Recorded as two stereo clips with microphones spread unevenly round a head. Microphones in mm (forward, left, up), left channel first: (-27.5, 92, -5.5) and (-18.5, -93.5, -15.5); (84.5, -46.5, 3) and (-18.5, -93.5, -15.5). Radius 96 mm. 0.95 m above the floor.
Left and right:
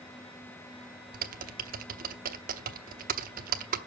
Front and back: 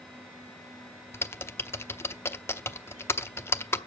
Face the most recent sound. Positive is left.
turn(degrees=-40)